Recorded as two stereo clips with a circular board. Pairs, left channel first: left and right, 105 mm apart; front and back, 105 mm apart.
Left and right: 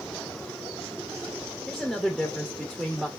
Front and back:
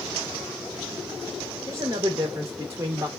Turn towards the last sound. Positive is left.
turn(degrees=-170)